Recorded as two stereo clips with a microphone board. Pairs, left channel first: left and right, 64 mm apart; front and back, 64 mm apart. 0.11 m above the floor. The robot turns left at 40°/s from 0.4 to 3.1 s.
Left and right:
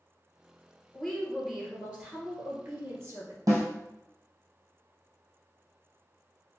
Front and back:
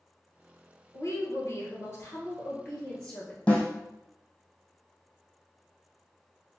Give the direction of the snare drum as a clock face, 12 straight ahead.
2 o'clock.